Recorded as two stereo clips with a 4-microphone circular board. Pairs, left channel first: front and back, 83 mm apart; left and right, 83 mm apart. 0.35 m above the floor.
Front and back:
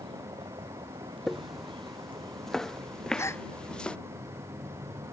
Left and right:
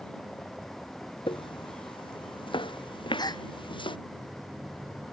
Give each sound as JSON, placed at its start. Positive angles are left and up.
{"t": 0.0, "sound": "a vehicle", "azimuth_deg": 170}
{"t": 1.3, "sound": "footsteps", "azimuth_deg": 90}
{"t": 3.2, "sound": "a gasp", "azimuth_deg": 55}